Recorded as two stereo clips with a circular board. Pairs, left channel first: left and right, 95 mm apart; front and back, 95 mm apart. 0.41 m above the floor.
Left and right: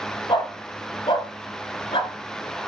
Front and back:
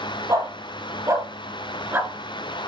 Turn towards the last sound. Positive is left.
turn(degrees=110)